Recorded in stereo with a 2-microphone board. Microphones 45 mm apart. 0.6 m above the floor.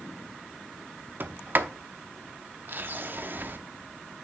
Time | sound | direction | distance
1.2 | a sliding door | 50° right (ahead or behind) | 0.6 m